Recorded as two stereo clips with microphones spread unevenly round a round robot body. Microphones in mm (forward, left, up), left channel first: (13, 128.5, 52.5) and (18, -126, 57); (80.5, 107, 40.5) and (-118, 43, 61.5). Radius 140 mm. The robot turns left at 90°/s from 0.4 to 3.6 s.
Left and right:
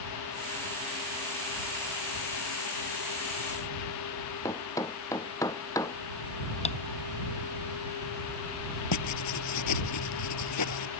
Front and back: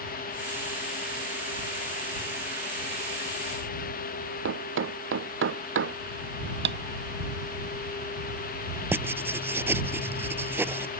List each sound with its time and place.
4.5 s a thud: 170° left
6.7 s tapping: 160° left
8.9 s writing: 120° left